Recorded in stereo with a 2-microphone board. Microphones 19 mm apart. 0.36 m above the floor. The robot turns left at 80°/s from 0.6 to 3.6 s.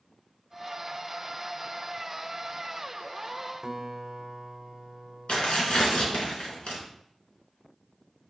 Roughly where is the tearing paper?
Left.